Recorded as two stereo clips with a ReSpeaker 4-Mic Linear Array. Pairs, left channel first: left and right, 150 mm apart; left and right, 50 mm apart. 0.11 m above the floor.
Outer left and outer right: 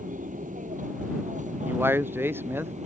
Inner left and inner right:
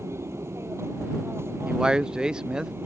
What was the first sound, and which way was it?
An aircraft, 60° right (ahead or behind).